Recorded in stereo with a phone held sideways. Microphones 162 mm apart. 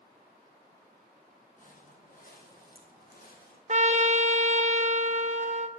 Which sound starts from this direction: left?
Footsteps, at 1.6 s.